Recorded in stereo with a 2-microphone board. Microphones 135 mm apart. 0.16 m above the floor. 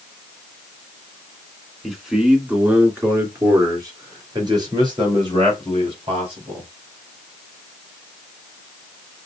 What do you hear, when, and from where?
1.8 s a man speaking: centre (ahead or behind), 2.0 m; by 6.7 s 45° right (ahead or behind), 4.5 m